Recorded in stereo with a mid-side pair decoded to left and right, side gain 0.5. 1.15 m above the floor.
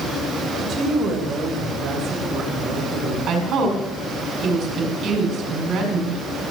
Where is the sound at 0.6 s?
60° right, 3 m.